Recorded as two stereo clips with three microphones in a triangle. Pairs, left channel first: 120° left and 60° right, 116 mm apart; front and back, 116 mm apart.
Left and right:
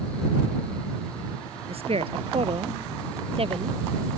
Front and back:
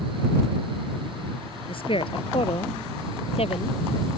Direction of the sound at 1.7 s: 35° right.